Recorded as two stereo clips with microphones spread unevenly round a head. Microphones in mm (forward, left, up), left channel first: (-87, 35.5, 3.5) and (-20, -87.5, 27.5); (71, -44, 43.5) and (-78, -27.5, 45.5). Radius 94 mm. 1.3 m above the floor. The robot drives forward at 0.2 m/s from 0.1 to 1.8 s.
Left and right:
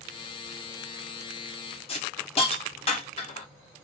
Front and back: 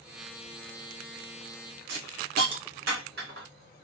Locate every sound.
1.9 s a hiss: 165° left, 1.2 m